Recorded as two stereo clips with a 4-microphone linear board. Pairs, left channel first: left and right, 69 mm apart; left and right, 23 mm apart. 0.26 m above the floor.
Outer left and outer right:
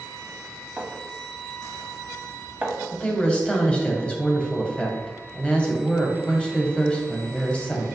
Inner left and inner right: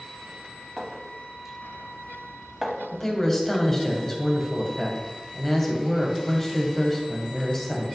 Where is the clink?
20° right (ahead or behind), 0.8 m.